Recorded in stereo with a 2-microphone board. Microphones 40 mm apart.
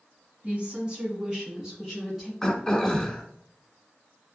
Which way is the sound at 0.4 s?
35° right (ahead or behind).